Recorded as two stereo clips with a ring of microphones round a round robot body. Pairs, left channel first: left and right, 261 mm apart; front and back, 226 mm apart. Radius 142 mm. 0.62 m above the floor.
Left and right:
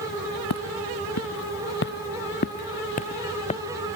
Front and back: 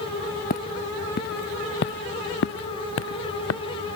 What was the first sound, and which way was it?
Footsteps, 55° left.